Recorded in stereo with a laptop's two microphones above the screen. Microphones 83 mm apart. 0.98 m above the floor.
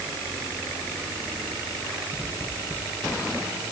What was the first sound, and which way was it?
Only background noise.